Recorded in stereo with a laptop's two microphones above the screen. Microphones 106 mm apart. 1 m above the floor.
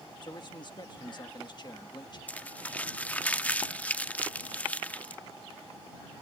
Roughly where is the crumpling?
Centre.